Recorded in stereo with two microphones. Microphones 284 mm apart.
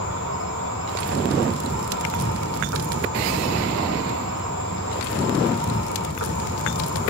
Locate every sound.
0.0 s an insect: 70° right (ahead or behind), 3.5 m